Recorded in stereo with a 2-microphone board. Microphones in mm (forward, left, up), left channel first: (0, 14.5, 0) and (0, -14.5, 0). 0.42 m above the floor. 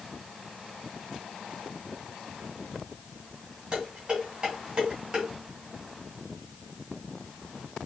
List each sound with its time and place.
3.7 s dishes clattering: 30° right (ahead or behind), 2.5 m